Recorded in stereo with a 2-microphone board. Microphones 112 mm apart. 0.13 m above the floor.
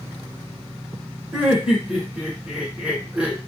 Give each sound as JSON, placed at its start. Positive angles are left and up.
{"t": 1.3, "sound": "laughter", "side_deg": -10, "distance_m": 1.1}